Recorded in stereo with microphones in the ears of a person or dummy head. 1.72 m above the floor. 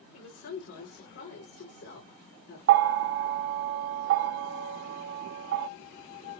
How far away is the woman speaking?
About 3.5 m.